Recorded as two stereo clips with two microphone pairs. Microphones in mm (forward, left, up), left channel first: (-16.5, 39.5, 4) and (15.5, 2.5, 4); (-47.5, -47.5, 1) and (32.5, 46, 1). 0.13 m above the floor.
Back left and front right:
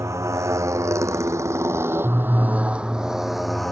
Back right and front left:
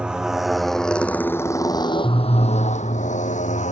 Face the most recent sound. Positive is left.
turn(degrees=-145)